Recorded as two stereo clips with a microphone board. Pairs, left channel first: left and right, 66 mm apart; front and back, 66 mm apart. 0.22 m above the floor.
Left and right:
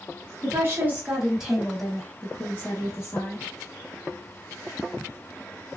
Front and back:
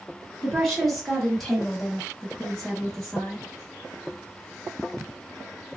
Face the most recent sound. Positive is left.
turn(degrees=80)